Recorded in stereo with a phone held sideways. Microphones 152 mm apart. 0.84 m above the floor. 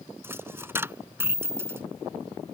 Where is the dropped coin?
15° right (ahead or behind).